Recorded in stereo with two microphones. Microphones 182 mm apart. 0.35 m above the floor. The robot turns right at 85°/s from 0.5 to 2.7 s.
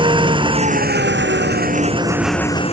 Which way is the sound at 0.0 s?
155° right.